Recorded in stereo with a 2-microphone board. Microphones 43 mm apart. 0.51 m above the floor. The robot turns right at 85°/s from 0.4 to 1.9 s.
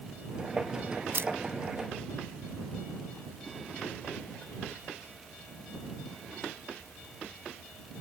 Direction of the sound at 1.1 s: 65° right (ahead or behind).